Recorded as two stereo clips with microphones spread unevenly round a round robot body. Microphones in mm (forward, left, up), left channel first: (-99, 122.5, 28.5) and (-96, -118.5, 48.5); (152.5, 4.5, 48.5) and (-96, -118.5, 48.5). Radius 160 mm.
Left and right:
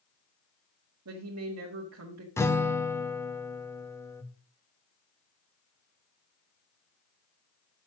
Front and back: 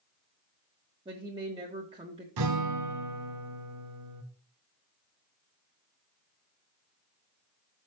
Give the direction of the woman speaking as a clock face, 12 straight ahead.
3 o'clock.